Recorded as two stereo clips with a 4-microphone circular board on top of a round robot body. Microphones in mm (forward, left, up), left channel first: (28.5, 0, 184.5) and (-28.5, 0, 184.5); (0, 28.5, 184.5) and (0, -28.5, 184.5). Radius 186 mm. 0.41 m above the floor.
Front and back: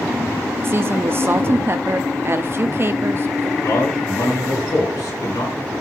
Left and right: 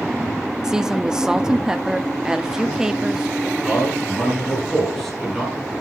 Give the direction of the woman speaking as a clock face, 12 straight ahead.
5 o'clock.